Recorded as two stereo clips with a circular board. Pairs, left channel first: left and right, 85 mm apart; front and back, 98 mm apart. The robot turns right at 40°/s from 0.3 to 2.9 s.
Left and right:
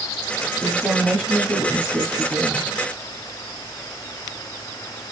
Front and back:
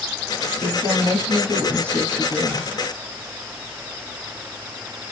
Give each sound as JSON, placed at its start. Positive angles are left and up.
{"t": 0.6, "sound": "a woman speaking", "azimuth_deg": 165, "distance_m": 1.0}